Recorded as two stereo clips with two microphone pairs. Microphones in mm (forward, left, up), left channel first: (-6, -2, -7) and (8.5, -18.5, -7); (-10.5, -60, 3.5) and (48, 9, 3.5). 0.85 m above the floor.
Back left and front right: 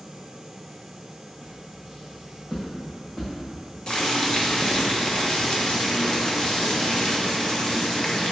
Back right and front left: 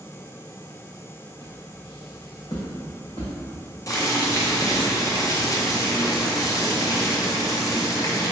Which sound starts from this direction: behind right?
Footsteps, at 1.4 s.